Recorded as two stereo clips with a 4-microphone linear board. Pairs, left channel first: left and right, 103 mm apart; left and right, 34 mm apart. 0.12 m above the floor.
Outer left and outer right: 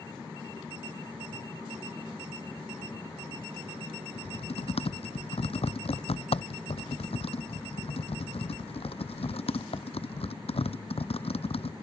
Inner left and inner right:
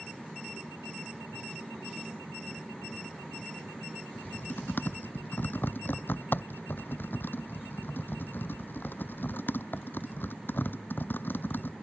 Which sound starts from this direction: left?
Typing on a keyboard, at 4.2 s.